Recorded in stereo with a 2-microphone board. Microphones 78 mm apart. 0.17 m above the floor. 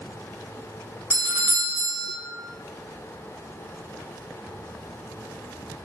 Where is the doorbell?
20° right (ahead or behind), 1.5 m.